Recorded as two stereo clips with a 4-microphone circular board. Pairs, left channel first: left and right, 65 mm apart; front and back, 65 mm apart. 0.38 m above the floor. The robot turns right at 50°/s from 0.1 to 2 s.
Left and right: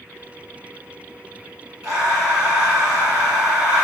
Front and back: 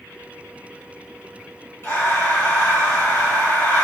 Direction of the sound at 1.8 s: 30° right.